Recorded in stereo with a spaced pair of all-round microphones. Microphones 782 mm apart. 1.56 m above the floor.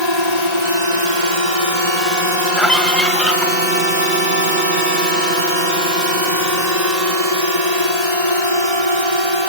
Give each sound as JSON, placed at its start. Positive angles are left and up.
{"t": 0.0, "sound": "a drone", "side_deg": -35}
{"t": 2.6, "sound": "a scream", "side_deg": 0}